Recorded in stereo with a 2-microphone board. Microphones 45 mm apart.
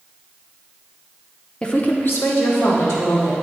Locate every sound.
1.6 s a woman speaking: 15° left (ahead or behind), 0.7 m; by 3.3 s 75° left (ahead or behind), 3 m